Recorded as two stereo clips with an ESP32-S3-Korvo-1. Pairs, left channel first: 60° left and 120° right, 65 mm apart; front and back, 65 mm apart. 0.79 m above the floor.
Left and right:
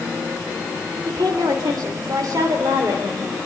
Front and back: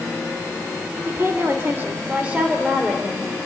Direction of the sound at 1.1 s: 130° right.